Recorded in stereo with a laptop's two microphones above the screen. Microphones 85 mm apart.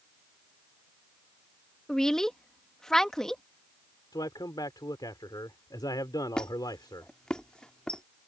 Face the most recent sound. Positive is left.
turn(degrees=10)  # may be behind; listen again after turning